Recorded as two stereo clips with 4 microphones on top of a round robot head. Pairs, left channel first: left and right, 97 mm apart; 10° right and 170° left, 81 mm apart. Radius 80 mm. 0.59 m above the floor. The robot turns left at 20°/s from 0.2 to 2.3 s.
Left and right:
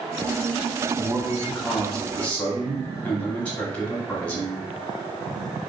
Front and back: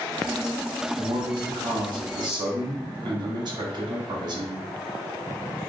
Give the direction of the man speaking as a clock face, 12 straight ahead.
6 o'clock.